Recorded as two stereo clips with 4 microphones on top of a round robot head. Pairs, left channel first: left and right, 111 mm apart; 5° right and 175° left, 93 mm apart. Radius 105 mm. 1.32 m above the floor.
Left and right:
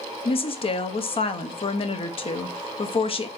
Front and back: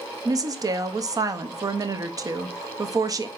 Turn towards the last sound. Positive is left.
turn(degrees=125)